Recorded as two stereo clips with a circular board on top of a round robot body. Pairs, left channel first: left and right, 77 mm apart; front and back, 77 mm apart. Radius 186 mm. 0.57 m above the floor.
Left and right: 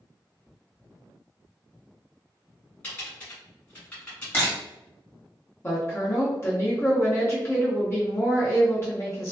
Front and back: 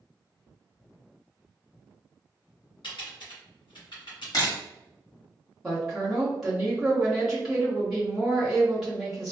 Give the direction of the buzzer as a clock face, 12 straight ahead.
I don't hear a buzzer.